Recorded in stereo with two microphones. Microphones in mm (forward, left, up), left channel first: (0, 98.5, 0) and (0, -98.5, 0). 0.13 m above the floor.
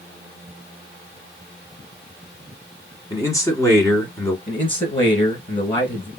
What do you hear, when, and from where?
3.1 s a man speaking: 15° left (ahead or behind), 1.1 m
4.5 s a man speaking: 25° left (ahead or behind), 1.5 m